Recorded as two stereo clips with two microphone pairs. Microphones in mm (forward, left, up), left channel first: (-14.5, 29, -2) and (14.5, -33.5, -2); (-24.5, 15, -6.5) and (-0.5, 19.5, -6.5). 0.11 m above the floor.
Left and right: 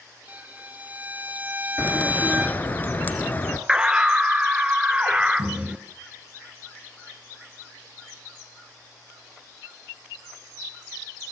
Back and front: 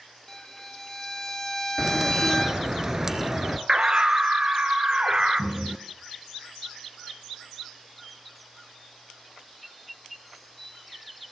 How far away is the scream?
About 1.6 m.